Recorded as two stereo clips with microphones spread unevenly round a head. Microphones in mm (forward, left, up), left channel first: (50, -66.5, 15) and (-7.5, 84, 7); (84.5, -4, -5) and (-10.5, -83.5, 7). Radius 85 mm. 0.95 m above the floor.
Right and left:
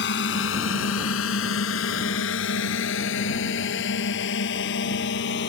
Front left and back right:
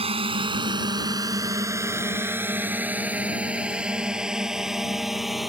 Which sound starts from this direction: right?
A drone, at 0.0 s.